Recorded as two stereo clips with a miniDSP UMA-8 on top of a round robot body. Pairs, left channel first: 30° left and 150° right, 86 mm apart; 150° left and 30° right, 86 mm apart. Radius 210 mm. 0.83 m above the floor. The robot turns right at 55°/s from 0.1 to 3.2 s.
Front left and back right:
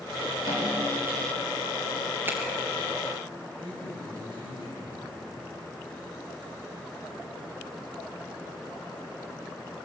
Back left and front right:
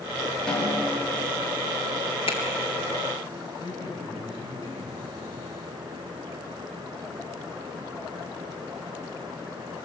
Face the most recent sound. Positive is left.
turn(degrees=-175)